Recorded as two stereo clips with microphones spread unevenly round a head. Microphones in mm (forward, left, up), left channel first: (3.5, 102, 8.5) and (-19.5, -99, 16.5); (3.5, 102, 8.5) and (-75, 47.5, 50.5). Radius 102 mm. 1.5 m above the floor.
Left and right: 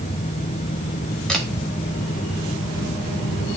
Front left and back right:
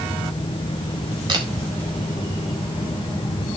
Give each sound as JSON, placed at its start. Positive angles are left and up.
{"t": 1.3, "sound": "a camera shutter", "azimuth_deg": 170, "distance_m": 2.0}